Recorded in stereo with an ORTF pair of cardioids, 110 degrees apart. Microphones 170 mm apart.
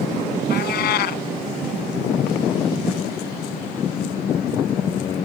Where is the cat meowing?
65° left.